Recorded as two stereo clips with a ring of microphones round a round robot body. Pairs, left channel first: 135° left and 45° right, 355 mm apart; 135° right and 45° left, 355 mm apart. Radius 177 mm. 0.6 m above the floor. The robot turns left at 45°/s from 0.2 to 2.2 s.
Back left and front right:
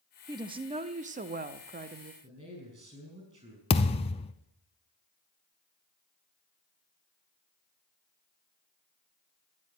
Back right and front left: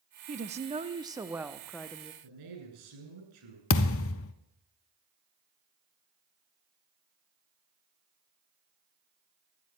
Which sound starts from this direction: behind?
A thud, at 3.7 s.